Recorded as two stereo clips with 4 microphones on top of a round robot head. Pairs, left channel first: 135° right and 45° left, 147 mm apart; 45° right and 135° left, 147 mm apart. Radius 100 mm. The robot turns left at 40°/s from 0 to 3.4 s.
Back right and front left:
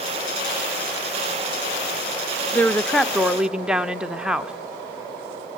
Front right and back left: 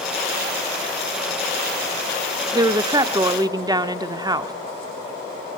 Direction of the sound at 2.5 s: 155° left.